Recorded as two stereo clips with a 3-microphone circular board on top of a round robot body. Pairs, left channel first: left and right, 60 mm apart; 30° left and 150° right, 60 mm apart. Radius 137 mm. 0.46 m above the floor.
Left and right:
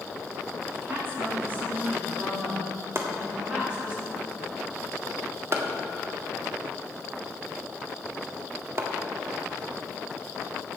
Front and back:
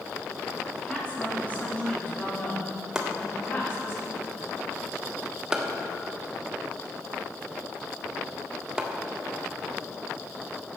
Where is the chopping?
75° right, 1.8 m.